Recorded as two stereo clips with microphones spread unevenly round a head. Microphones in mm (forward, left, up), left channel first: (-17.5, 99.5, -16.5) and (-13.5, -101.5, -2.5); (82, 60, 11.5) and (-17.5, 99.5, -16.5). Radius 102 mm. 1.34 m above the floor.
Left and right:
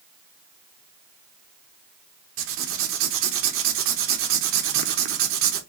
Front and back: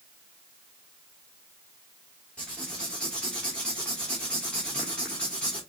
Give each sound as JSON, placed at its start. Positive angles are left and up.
{"t": 2.4, "sound": "writing", "azimuth_deg": -100, "distance_m": 0.9}